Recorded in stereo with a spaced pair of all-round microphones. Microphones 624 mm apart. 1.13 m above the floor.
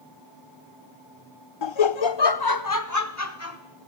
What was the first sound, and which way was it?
Laughter, 45° left (ahead or behind).